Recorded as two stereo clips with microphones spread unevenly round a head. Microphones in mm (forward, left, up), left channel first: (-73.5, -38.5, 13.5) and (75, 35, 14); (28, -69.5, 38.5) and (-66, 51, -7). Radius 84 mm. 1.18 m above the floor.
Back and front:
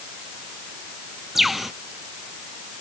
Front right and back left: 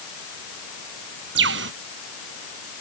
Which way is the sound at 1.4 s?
115° left.